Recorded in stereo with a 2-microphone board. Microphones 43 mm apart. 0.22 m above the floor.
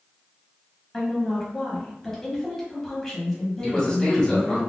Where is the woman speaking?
10° left (ahead or behind), 1.1 m.